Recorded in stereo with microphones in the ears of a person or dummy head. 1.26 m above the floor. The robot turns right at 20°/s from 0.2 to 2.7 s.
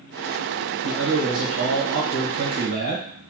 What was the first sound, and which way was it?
A man speaking, 90° right.